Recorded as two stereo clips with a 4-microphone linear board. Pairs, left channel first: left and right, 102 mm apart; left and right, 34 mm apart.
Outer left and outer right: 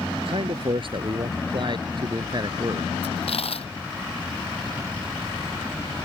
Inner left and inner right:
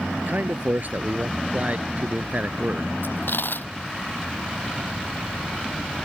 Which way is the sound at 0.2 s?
60° right (ahead or behind).